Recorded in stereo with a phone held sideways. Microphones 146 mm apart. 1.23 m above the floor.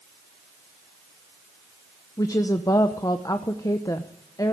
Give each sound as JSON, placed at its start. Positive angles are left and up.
{"t": 2.2, "sound": "a woman speaking", "side_deg": 25, "distance_m": 0.8}